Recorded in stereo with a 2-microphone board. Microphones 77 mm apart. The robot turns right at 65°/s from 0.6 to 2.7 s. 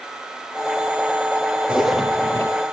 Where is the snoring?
No snoring in this recording.